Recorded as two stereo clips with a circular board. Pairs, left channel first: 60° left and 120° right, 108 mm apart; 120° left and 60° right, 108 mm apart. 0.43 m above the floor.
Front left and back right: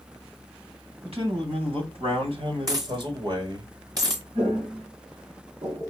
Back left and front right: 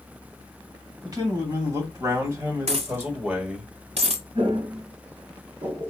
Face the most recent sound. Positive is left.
turn(degrees=-70)